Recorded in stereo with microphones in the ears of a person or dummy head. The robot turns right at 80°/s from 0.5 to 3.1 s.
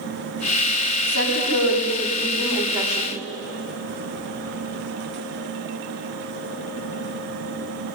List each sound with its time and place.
1.1 s a woman speaking: 75° left, 5.5 m; by 3.1 s 125° right, 5.5 m